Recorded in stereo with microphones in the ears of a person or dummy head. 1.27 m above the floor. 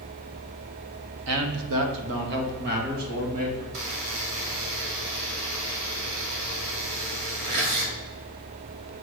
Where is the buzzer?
65° right (ahead or behind), 2.0 m.